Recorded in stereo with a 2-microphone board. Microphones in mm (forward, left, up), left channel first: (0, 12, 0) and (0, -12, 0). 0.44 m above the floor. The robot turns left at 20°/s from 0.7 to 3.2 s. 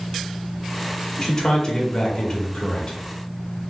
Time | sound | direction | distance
1.2 | a man speaking | 140° left | 1.1 m